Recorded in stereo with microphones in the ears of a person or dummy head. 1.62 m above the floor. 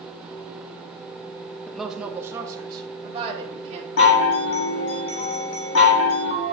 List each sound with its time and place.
1.7 s a woman speaking: 10° left (ahead or behind), 0.8 m; by 3.9 s 35° right (ahead or behind), 2.0 m
4.0 s a chime: 55° left (ahead or behind), 1.6 m